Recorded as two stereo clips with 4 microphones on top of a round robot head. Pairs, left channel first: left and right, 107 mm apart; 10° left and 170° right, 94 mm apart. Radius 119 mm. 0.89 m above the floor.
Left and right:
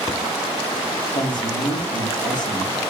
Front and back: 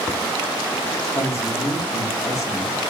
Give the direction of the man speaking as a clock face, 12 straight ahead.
10 o'clock.